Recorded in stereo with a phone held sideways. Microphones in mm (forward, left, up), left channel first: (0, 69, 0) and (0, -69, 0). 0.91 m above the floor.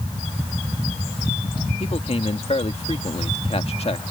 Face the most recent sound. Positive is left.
turn(degrees=50)  # may be behind; listen again after turning